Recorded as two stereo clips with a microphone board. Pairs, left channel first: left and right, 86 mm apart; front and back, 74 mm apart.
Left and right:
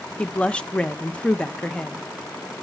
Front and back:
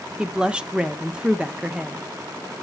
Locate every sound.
0.2 s a woman speaking: 135° left, 0.5 m